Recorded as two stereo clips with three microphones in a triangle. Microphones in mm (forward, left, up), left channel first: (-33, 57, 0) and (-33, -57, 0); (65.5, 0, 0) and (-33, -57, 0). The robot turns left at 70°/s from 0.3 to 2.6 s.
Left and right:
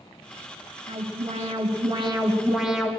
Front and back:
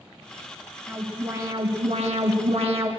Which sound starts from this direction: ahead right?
An alarm, at 0.9 s.